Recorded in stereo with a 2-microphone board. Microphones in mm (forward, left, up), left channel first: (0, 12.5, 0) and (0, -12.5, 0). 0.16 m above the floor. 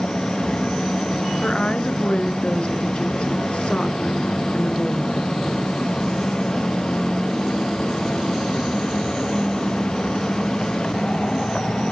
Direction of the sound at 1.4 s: 50° left (ahead or behind).